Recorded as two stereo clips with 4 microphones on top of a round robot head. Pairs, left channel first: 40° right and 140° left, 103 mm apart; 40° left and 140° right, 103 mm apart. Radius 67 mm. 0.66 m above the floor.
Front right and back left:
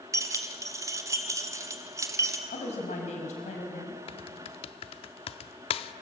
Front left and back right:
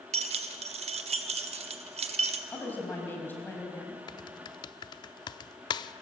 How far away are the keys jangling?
About 1.3 m.